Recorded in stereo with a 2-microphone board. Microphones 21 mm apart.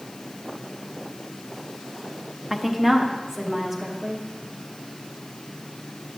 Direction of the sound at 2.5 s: Centre (ahead or behind).